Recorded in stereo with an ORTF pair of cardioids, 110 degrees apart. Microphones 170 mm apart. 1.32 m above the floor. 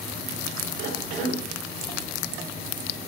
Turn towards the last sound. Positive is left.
turn(degrees=-70)